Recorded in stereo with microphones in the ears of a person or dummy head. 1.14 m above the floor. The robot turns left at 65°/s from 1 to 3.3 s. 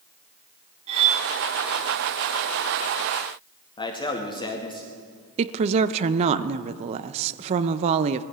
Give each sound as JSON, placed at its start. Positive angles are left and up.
{"t": 0.9, "sound": "cutlery clinking", "side_deg": -30, "distance_m": 1.5}
{"t": 3.8, "sound": "a man speaking", "side_deg": 25, "distance_m": 2.0}
{"t": 5.4, "sound": "a woman speaking", "side_deg": -35, "distance_m": 0.7}